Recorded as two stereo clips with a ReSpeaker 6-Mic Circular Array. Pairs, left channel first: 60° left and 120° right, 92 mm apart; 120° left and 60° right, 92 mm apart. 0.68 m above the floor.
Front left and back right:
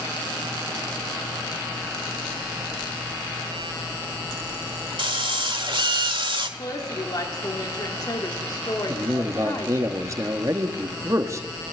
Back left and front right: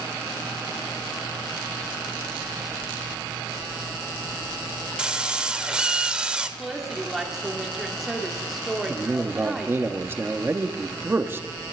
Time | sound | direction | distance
5.0 | a drill | 140° right | 1.3 m
6.6 | a woman speaking | 25° left | 1.6 m
8.9 | a man speaking | 100° right | 1.1 m